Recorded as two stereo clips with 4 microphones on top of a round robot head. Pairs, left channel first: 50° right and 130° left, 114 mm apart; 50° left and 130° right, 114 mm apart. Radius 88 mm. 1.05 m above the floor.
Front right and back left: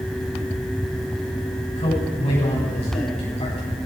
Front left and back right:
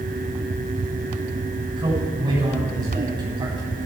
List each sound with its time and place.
1.8 s a man speaking: 85° right, 9 m